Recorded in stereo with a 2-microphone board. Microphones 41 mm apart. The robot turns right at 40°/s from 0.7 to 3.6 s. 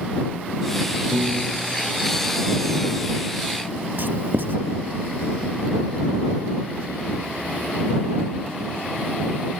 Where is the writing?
60° right (ahead or behind).